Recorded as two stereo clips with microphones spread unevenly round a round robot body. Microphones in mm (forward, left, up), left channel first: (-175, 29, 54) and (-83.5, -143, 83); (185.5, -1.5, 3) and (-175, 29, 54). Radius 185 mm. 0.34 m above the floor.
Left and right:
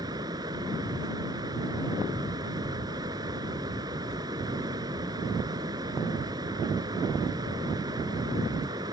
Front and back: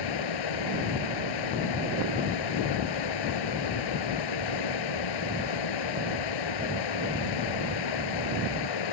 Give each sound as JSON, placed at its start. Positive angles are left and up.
{"t": 0.0, "sound": "running water", "azimuth_deg": 15}